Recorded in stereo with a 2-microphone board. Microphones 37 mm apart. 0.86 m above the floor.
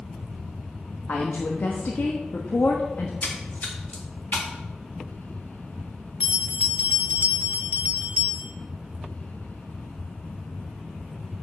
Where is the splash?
50° left (ahead or behind), 1.7 m.